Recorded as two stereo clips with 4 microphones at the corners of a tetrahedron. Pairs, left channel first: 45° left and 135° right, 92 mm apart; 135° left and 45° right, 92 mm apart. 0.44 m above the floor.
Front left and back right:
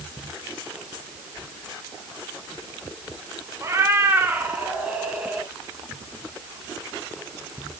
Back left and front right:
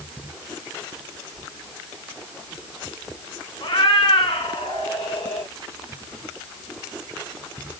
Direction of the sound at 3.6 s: 165° left.